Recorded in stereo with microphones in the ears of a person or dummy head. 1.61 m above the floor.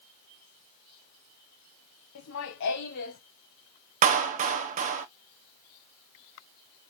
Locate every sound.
2.1 s laughter: 75° left (ahead or behind), 1.4 m; by 3.2 s 55° left (ahead or behind), 1.9 m
4.0 s a clap: 45° right (ahead or behind), 0.8 m